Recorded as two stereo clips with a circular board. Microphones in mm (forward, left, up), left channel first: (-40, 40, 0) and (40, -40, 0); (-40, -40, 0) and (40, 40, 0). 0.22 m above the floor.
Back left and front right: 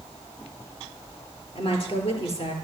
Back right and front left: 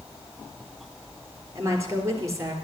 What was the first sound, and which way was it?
A woman speaking, 105° left.